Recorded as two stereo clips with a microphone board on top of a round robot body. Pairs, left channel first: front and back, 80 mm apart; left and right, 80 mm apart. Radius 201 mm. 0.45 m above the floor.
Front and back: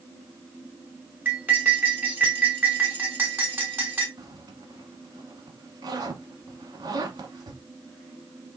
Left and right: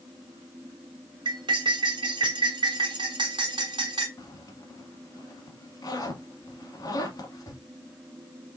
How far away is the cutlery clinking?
About 2.5 m.